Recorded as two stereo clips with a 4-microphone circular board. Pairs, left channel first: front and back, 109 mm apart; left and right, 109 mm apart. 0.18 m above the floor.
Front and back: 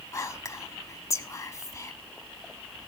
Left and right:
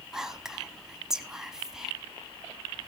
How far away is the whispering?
About 1.2 m.